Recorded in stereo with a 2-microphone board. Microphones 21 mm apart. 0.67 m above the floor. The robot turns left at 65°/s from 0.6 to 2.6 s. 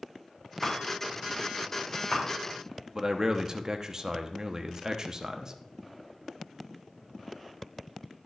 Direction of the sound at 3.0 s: 35° right (ahead or behind).